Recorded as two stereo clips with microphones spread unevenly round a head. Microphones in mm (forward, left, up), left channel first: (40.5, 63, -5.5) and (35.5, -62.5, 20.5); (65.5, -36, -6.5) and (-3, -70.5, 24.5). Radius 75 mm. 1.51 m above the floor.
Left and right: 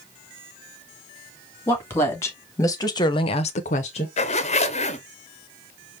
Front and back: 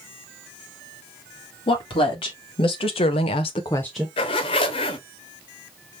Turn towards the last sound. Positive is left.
turn(degrees=50)